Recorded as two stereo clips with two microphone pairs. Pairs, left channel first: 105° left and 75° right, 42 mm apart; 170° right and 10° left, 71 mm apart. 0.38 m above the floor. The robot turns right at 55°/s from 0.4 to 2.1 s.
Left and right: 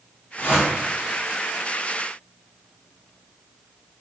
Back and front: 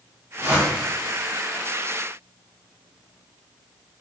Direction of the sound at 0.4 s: 65° left.